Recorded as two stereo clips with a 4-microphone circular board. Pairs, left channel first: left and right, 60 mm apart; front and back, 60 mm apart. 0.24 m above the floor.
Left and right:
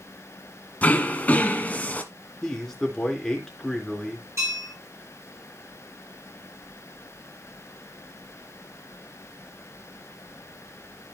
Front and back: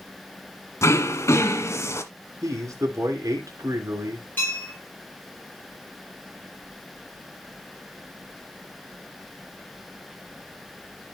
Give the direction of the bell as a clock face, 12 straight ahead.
2 o'clock.